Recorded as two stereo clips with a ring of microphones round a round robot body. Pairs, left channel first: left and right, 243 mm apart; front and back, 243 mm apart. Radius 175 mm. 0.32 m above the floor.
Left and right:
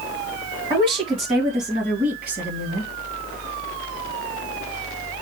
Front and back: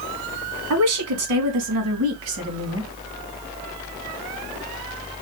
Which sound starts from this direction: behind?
A woman speaking, at 0.7 s.